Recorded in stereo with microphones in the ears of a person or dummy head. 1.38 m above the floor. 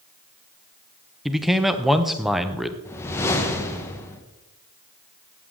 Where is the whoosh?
15° left (ahead or behind), 1.1 m.